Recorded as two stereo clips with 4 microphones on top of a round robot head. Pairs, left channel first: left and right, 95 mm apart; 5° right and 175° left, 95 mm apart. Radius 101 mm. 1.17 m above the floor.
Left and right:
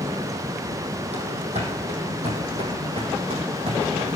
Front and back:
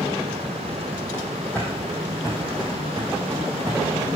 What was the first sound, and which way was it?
Running footsteps, 80° right.